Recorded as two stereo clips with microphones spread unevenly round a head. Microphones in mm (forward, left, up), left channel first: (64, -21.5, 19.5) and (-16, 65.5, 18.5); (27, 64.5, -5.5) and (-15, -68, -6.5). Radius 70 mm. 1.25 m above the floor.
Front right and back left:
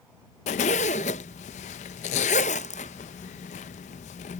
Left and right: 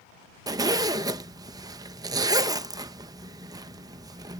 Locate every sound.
0.5 s a zipper: 45° right